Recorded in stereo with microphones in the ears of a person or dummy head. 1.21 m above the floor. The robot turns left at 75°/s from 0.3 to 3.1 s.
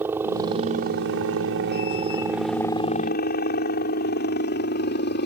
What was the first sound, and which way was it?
A helicopter, 10° right (ahead or behind).